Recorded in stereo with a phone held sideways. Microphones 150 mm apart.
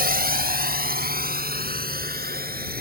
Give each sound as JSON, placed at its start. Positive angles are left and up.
{"t": 0.0, "sound": "a drone", "side_deg": -85}